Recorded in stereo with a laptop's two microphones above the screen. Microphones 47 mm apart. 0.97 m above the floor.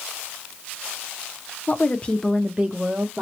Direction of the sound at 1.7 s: 45° left (ahead or behind).